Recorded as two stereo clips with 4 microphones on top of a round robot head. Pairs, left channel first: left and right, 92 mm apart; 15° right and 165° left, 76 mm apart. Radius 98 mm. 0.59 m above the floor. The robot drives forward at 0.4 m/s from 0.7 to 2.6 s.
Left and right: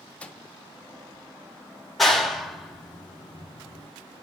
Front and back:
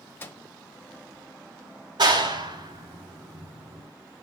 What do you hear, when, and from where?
0.2 s a microwave: 25° left, 1.0 m
2.0 s a clap: straight behind, 1.6 m